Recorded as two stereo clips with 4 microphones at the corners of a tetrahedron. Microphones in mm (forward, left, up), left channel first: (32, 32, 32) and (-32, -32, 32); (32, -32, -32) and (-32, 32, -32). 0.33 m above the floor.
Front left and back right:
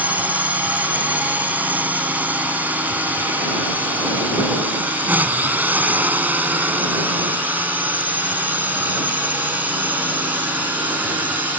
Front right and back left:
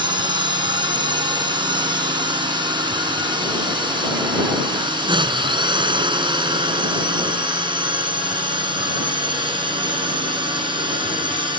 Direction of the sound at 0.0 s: 155° left.